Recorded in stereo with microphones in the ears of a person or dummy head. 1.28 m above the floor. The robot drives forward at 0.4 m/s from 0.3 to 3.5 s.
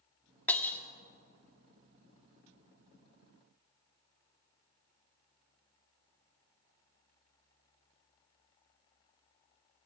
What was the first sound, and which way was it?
Breaking glass, 10° left (ahead or behind).